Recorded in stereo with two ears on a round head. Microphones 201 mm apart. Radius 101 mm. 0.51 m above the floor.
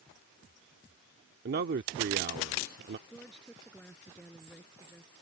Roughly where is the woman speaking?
Centre.